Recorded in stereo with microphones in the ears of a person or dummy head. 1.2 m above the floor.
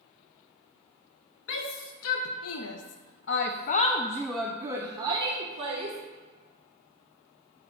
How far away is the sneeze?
No sneeze in this recording.